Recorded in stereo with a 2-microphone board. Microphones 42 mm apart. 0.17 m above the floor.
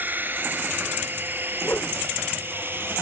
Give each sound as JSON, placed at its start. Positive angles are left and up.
{"t": 0.0, "sound": "a drone", "side_deg": -50}
{"t": 1.6, "sound": "a whoosh", "side_deg": 45}